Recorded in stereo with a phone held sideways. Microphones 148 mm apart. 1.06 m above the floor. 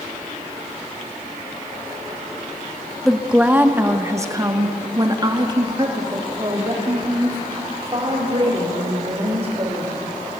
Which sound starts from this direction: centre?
A woman speaking, at 3.0 s.